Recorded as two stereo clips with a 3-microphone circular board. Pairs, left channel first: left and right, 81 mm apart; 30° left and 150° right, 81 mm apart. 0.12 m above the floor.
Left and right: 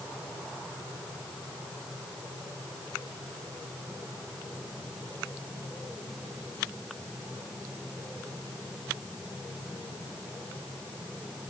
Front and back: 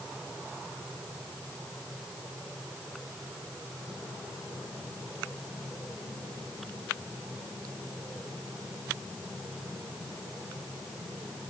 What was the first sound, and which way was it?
Only background noise.